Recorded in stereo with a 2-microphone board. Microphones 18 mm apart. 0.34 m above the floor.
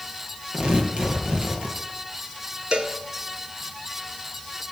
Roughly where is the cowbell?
Right.